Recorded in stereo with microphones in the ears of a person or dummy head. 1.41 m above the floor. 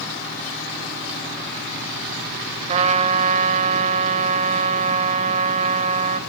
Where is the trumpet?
40° right (ahead or behind), 2 m.